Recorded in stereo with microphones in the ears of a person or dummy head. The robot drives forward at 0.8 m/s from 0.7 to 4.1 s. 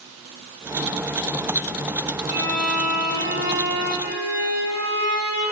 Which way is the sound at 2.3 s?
55° right (ahead or behind).